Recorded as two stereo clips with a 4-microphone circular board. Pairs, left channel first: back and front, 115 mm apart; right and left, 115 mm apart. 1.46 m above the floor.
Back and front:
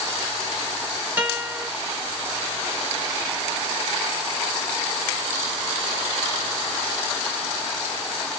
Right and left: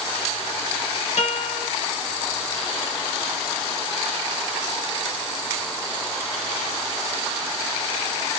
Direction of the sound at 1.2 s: 75° right.